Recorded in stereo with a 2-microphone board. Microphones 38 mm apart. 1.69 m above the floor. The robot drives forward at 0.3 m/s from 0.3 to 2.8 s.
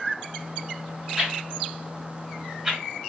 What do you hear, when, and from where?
1.2 s a whoosh: 15° right (ahead or behind), 1.9 m; by 2.8 s 20° right (ahead or behind), 1.7 m